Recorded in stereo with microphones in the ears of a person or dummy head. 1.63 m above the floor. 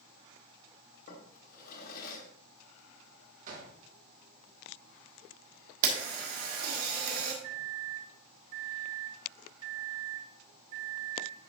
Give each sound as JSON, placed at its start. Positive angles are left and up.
{"t": 1.1, "sound": "a drawer", "side_deg": 45, "distance_m": 1.4}
{"t": 3.5, "sound": "a gunshot", "side_deg": -50, "distance_m": 1.1}
{"t": 5.8, "sound": "a camera shutter", "side_deg": -60, "distance_m": 1.5}
{"t": 7.4, "sound": "a microwave", "side_deg": -35, "distance_m": 1.4}